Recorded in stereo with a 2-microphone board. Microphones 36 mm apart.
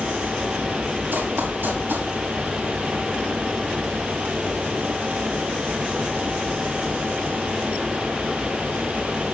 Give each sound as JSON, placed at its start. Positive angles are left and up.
{"t": 1.1, "sound": "running footsteps", "side_deg": -85, "distance_m": 6.5}